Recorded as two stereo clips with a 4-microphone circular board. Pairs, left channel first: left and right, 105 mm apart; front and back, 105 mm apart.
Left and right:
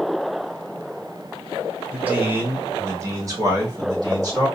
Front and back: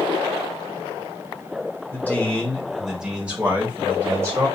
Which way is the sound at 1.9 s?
35° right.